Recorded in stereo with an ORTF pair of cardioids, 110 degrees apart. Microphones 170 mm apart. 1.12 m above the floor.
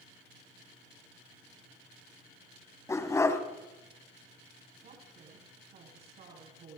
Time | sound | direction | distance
2.9 | a dog barking | 15° left | 3.5 m
4.8 | a woman speaking | 60° right | 9.5 m